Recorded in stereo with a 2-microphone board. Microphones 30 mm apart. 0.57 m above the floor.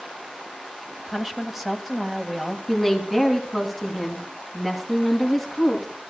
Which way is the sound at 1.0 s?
5° right (ahead or behind).